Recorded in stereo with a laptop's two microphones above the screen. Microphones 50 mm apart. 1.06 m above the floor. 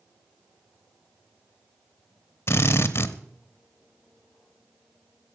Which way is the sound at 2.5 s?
50° left (ahead or behind).